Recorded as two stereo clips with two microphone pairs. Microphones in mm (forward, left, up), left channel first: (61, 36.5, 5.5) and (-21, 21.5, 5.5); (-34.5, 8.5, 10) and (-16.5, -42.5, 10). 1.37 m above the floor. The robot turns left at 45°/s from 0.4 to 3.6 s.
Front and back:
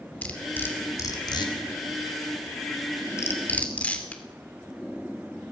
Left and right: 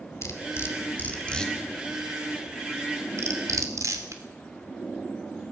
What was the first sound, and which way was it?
Cutlery clinking, 80° left.